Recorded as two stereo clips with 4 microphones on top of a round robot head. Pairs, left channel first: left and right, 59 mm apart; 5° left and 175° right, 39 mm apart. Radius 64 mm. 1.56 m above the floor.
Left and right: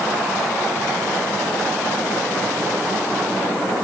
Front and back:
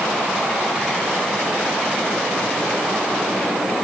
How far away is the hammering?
No hammering in this recording.